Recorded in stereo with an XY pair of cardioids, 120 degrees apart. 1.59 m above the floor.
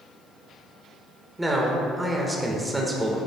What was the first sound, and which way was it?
A man speaking, 10° right.